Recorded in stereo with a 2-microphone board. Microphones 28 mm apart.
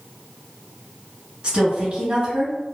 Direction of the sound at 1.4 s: 25° right (ahead or behind).